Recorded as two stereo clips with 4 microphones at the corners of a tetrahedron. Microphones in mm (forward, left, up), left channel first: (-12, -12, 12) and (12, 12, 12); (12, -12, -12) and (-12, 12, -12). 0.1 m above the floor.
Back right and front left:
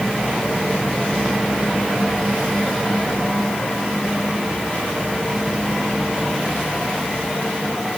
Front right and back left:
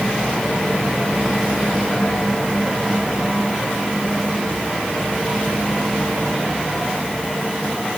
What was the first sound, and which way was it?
Only background noise.